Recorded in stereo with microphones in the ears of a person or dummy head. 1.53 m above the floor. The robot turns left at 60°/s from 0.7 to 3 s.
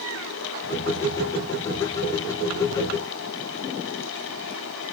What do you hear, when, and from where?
Only background noise.